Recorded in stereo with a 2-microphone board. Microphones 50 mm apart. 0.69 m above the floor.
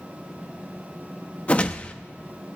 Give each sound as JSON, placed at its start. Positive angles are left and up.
{"t": 1.5, "sound": "a whoosh", "side_deg": 30, "distance_m": 0.6}